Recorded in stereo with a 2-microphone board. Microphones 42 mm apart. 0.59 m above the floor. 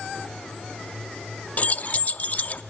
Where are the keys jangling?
40° left (ahead or behind), 0.5 m.